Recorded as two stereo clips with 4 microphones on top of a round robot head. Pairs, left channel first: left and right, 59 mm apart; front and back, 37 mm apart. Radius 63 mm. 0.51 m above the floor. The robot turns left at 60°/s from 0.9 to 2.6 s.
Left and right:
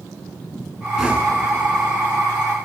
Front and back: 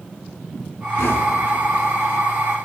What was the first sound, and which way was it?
Knocking, 5° right.